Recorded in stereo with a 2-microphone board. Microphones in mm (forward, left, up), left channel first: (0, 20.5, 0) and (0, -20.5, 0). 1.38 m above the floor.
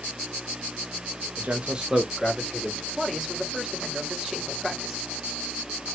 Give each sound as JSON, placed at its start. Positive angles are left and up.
{"t": 1.4, "sound": "a man speaking", "side_deg": -45, "distance_m": 0.9}
{"t": 3.0, "sound": "a man speaking", "side_deg": -10, "distance_m": 1.6}